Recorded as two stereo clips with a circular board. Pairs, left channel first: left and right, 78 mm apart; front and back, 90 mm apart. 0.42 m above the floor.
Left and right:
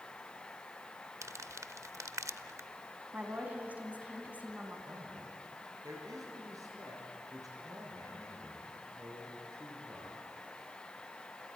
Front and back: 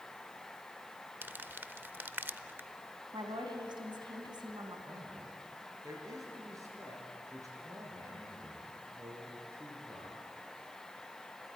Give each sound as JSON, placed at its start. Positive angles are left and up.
{"t": 1.2, "sound": "crumpling", "azimuth_deg": -120, "distance_m": 0.5}
{"t": 3.1, "sound": "a woman speaking", "azimuth_deg": -160, "distance_m": 3.0}
{"t": 4.9, "sound": "a man speaking", "azimuth_deg": -130, "distance_m": 6.0}